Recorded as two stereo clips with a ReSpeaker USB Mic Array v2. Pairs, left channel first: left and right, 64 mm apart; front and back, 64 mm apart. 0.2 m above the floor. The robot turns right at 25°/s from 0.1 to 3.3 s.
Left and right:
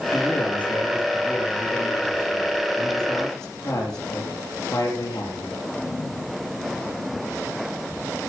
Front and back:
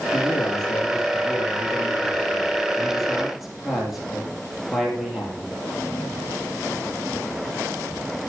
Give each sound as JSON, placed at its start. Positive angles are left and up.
{"t": 0.1, "sound": "a man speaking", "azimuth_deg": 15, "distance_m": 4.5}